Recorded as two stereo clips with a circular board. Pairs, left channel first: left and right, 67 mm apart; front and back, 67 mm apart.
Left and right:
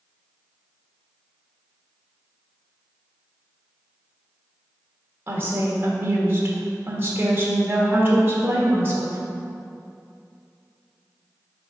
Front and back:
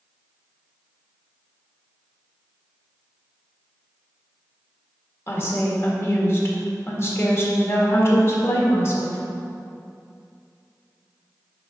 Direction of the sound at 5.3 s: 40° right.